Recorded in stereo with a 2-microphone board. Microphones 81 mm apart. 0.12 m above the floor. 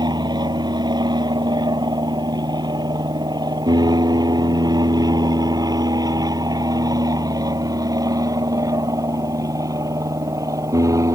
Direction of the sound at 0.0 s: 60° right (ahead or behind).